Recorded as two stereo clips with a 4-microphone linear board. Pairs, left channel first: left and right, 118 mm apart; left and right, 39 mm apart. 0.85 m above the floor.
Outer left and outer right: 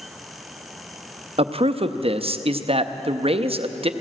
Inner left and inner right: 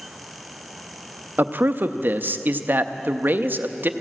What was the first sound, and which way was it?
A man speaking, 55° right (ahead or behind).